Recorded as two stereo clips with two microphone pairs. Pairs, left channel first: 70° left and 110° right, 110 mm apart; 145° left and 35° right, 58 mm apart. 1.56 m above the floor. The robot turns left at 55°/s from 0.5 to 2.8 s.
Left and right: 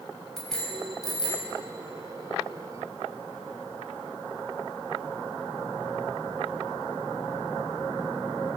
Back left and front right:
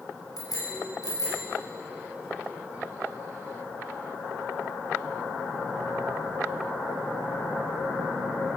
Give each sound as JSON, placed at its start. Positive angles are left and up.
{"t": 0.4, "sound": "a bicycle bell", "azimuth_deg": 160, "distance_m": 6.0}